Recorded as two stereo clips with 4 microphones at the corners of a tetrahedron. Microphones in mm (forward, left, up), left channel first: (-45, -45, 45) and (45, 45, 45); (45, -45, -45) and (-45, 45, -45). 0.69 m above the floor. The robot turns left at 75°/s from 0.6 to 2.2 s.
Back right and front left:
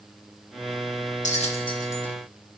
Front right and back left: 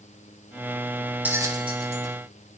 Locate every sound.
1.2 s a bell: 150° right, 2.5 m; by 2.1 s 145° left, 2.5 m